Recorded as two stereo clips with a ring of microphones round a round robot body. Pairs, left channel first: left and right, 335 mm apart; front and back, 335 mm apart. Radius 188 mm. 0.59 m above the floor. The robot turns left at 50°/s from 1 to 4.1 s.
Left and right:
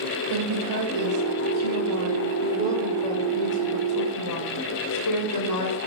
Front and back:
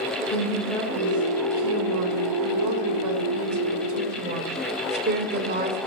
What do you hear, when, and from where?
0.3 s a woman speaking: 85° right, 3 m; by 5.8 s 120° left, 3 m